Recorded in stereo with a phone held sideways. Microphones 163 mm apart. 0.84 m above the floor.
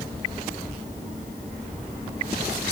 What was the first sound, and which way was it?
Only background noise.